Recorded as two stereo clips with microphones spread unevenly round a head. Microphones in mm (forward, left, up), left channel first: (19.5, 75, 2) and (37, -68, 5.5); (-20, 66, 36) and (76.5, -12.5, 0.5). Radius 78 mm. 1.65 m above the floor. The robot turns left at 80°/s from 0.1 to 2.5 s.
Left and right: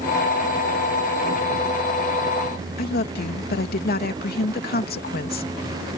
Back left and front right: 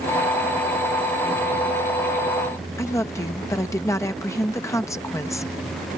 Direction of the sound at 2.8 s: 70° left.